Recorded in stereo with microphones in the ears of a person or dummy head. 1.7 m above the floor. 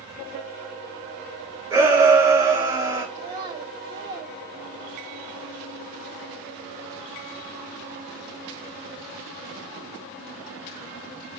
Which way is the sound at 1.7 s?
15° right (ahead or behind).